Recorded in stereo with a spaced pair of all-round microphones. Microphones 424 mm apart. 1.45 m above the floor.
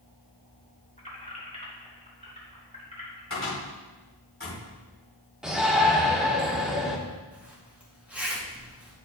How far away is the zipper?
About 2.5 m.